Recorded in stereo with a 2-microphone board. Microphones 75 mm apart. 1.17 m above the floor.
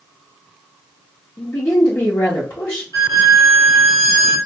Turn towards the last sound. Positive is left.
turn(degrees=50)  # may be behind; listen again after turning